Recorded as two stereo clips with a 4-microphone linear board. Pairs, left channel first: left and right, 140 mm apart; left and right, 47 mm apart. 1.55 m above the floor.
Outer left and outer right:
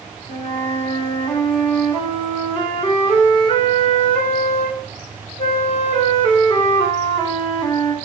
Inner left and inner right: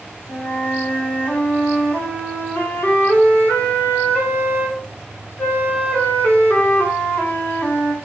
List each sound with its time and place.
0.3 s a flute: 45° left (ahead or behind), 3.5 m